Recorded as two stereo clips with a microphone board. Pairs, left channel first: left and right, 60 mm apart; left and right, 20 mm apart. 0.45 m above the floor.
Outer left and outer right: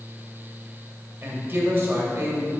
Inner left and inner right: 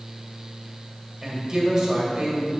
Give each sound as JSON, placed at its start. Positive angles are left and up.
{"t": 1.2, "sound": "a woman speaking", "side_deg": -35, "distance_m": 1.9}